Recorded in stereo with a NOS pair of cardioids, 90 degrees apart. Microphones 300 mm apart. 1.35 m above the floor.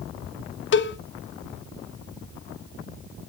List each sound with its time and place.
0.7 s a cowbell: 40° left, 0.8 m